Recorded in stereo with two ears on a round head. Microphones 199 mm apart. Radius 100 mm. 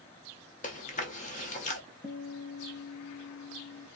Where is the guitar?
35° left (ahead or behind), 1.9 m.